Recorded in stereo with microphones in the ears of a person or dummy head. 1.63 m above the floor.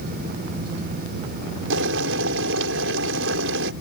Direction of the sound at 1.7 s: 75° right (ahead or behind).